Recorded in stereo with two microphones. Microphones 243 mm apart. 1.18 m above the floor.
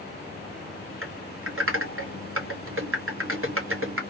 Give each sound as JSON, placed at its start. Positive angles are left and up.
{"t": 1.0, "sound": "typing on a keyboard", "side_deg": -60, "distance_m": 1.0}